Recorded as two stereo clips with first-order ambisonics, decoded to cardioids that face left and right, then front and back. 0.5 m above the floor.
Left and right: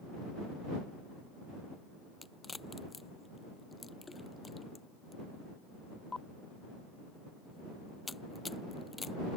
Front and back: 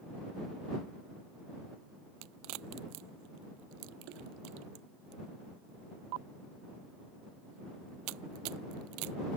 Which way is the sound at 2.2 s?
170° left.